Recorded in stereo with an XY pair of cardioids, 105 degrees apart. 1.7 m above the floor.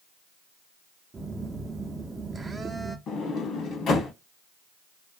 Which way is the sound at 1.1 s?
30° right.